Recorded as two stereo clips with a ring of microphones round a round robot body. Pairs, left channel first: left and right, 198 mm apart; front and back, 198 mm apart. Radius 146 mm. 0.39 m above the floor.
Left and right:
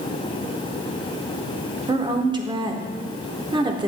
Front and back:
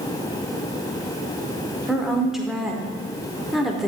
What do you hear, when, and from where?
1.9 s a woman speaking: 95° right, 0.8 m